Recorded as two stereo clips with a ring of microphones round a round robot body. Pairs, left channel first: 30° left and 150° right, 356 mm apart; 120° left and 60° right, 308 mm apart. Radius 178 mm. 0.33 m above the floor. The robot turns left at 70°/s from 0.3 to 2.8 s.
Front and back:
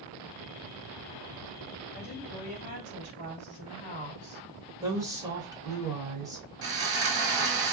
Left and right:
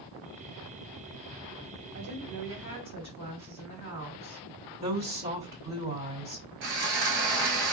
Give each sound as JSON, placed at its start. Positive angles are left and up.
{"t": 1.9, "sound": "a woman speaking", "azimuth_deg": -35, "distance_m": 2.0}
{"t": 4.8, "sound": "a woman speaking", "azimuth_deg": -80, "distance_m": 1.5}
{"t": 6.6, "sound": "sawing", "azimuth_deg": -95, "distance_m": 0.9}